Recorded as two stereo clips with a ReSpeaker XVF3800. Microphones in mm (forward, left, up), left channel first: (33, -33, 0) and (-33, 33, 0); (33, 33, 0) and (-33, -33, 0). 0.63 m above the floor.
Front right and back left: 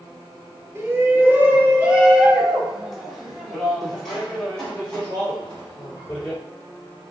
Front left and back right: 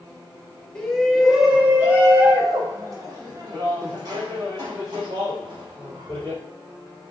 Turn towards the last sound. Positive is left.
turn(degrees=-120)